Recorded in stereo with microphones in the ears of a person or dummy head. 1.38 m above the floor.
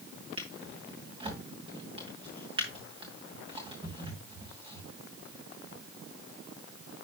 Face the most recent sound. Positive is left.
turn(degrees=-25)  # may be behind; listen again after turning